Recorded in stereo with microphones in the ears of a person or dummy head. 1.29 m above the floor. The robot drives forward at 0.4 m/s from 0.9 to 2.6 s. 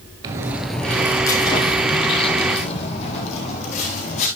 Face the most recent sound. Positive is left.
turn(degrees=35)  # may be behind; listen again after turning